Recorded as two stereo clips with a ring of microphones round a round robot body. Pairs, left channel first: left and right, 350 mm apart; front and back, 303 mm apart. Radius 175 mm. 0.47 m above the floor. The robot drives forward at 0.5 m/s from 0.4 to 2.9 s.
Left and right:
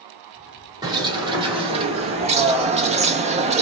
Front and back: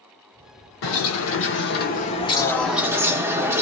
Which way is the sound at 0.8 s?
15° right.